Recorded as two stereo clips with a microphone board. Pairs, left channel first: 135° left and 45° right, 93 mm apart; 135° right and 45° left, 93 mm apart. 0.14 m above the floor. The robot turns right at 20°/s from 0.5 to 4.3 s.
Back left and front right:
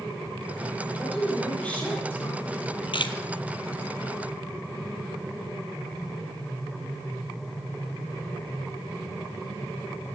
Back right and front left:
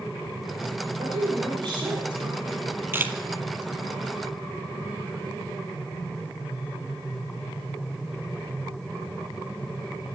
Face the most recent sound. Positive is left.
turn(degrees=135)